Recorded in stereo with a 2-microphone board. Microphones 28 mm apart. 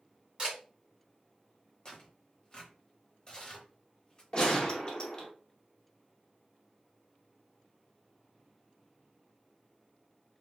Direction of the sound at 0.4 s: 25° right (ahead or behind).